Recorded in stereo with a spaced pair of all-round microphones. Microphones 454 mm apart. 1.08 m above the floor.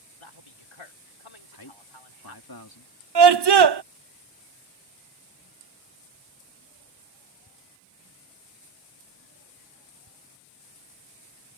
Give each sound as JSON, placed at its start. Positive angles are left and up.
{"t": 0.2, "sound": "a man speaking", "side_deg": 80}
{"t": 1.5, "sound": "a man speaking", "side_deg": 45}
{"t": 3.1, "sound": "a scream", "side_deg": -60}